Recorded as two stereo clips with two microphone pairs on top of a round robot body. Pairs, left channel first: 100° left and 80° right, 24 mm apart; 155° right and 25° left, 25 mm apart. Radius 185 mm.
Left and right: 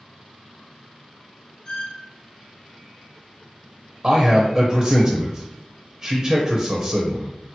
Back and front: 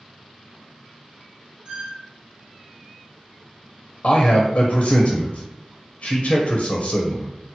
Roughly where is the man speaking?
Behind right.